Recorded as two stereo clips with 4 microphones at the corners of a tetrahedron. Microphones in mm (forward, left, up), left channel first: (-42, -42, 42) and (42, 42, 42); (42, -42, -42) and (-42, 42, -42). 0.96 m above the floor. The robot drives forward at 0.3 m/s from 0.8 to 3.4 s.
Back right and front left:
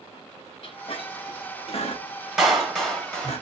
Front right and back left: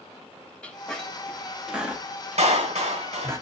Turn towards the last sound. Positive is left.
turn(degrees=140)